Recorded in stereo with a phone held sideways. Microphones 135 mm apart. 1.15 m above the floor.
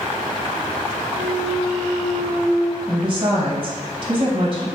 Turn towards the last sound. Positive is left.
turn(degrees=-35)  # may be behind; listen again after turning